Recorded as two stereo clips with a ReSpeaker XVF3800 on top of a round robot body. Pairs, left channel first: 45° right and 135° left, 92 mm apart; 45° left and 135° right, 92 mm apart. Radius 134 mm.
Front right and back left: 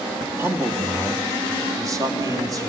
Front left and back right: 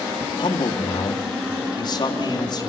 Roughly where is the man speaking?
Left.